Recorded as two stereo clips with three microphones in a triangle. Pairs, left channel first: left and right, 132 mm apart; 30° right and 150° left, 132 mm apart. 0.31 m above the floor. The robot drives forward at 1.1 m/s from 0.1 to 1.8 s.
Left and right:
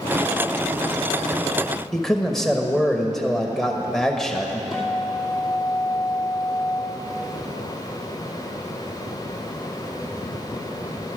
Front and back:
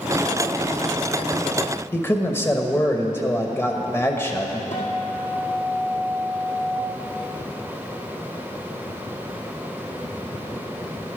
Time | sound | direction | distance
1.9 | a man speaking | 10° left | 0.9 m
4.7 | a guitar | 5° right | 2.5 m